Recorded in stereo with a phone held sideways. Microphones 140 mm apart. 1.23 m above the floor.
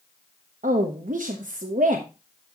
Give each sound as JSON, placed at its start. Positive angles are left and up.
{"t": 0.6, "sound": "a woman speaking", "side_deg": -70, "distance_m": 1.1}